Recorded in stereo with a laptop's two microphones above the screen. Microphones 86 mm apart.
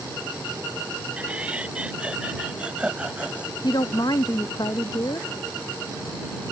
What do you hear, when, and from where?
1.2 s laughter: 15° right (ahead or behind)
3.6 s a woman speaking: 55° left (ahead or behind)